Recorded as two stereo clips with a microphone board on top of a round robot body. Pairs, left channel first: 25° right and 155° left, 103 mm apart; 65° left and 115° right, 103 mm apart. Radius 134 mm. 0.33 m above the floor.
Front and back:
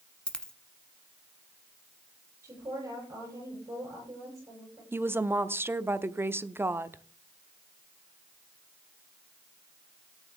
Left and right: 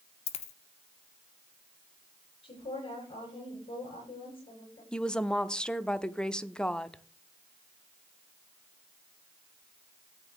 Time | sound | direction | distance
0.3 | a dropped coin | 60° left | 1.1 m
2.4 | a woman speaking | 95° left | 9.5 m
4.9 | a woman speaking | 135° left | 0.9 m